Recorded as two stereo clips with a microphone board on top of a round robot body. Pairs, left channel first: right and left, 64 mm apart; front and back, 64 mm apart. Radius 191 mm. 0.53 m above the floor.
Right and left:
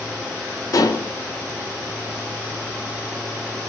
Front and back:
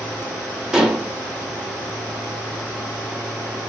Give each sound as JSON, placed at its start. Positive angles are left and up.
{"t": 0.7, "sound": "dishes clattering", "azimuth_deg": -100, "distance_m": 1.0}